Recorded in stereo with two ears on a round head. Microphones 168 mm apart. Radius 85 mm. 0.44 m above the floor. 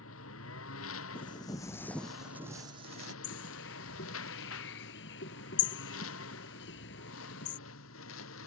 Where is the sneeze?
I don't hear a sneeze.